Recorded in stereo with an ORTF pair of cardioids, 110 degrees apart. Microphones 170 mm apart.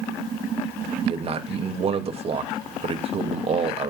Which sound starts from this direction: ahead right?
A man speaking, at 1.0 s.